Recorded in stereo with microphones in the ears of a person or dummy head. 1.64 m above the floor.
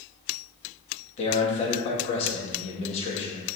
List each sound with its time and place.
1.2 s a man speaking: 45° left (ahead or behind), 2 m